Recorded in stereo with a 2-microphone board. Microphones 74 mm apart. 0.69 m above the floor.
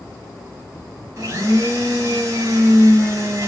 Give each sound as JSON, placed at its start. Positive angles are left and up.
{"t": 1.2, "sound": "a blender", "side_deg": -50, "distance_m": 1.0}